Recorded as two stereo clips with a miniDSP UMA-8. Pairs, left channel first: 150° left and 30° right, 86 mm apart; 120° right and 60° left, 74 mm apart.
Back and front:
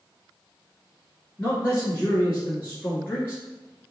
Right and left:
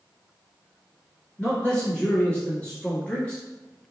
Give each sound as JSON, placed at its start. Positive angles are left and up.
{"t": 1.4, "sound": "a man speaking", "azimuth_deg": -175, "distance_m": 1.3}